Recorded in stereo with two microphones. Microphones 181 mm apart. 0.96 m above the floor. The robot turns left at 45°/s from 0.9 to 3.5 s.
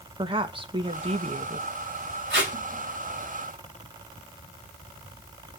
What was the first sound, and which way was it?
A woman speaking, 40° right.